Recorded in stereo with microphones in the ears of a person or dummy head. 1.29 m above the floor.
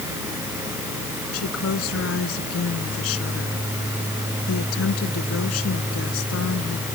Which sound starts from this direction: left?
A woman speaking, at 1.3 s.